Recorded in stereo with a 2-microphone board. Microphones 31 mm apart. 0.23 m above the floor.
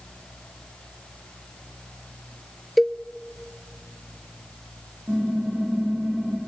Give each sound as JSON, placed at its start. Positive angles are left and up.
{"t": 2.8, "sound": "a cowbell", "side_deg": 0, "distance_m": 0.6}
{"t": 5.1, "sound": "typing on a keyboard", "side_deg": -65, "distance_m": 9.5}